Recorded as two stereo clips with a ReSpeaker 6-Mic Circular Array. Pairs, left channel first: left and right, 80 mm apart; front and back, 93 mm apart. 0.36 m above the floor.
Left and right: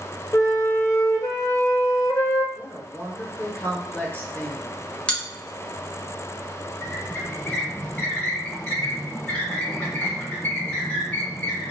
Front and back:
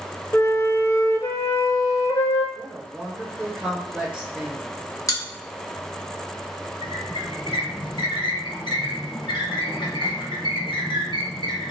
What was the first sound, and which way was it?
A flute, 50° left.